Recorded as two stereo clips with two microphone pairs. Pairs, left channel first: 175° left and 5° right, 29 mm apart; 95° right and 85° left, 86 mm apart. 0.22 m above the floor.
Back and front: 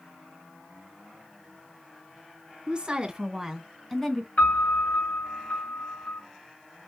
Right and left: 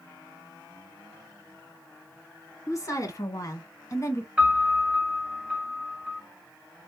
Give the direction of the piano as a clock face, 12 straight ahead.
7 o'clock.